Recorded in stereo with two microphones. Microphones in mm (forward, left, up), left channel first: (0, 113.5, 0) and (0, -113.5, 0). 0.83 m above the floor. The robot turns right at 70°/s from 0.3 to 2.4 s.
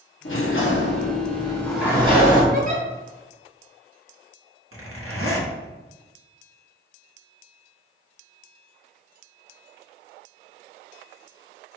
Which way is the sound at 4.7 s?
80° right.